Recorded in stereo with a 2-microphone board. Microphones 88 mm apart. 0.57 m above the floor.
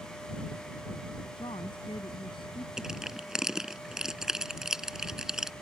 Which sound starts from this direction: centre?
Crushing, at 2.8 s.